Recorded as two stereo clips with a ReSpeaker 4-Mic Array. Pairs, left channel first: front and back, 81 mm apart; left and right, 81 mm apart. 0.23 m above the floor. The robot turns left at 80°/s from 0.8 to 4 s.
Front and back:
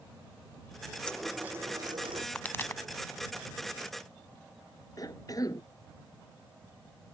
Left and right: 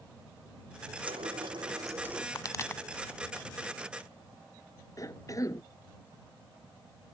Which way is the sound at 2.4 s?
70° left.